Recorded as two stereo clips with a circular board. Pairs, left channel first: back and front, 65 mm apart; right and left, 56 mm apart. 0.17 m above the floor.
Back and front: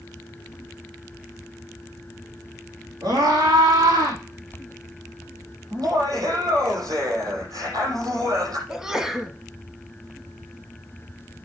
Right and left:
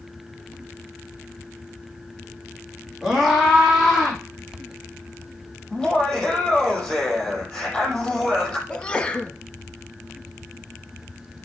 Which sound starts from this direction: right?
A sneeze, at 8.7 s.